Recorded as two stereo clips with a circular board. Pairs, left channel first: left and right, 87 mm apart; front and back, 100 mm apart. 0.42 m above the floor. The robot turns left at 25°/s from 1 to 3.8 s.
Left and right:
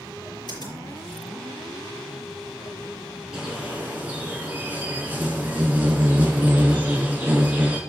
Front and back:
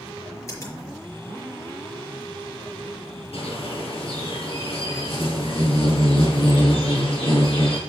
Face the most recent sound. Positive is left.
turn(degrees=-20)